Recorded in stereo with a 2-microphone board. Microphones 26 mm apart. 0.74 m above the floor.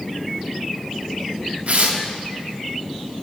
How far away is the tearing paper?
About 0.7 m.